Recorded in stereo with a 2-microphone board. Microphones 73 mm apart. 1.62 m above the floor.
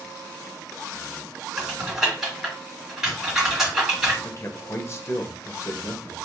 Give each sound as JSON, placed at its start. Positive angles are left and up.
{"t": 1.6, "sound": "typing on a keyboard", "side_deg": -5, "distance_m": 1.8}
{"t": 4.2, "sound": "a man speaking", "side_deg": 40, "distance_m": 0.6}